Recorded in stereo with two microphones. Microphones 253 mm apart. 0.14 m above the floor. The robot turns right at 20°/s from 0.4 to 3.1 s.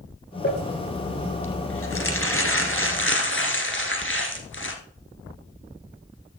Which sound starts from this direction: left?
Crumpling, at 0.4 s.